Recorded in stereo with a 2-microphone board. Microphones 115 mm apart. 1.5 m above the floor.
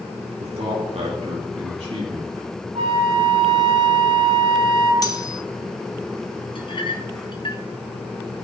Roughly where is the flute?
Right.